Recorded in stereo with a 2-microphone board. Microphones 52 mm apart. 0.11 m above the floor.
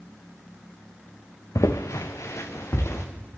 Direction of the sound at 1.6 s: 90° left.